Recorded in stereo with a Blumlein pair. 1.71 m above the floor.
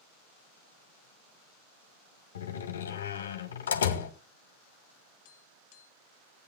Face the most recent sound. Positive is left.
turn(degrees=45)